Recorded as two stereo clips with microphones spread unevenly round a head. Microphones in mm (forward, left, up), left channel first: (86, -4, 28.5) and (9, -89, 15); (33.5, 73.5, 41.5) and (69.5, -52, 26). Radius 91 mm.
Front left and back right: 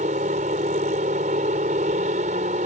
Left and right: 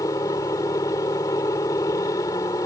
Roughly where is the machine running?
Behind.